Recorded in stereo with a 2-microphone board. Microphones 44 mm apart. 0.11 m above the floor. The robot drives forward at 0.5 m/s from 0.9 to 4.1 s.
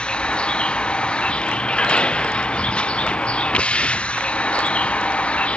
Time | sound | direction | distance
0.0 | a vehicle | 25° left (ahead or behind) | ?